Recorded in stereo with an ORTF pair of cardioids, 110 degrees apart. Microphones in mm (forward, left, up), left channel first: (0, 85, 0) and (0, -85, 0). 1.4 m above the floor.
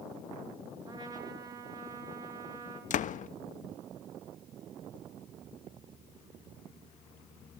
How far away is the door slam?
About 1.4 m.